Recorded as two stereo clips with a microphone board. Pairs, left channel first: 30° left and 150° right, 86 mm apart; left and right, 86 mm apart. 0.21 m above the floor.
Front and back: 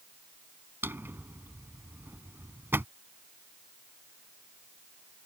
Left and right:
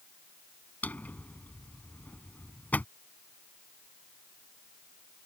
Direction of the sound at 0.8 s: 155° left.